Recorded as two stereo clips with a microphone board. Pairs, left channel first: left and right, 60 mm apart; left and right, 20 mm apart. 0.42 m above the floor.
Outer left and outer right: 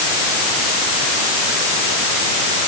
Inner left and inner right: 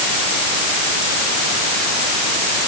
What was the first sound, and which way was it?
Only background noise.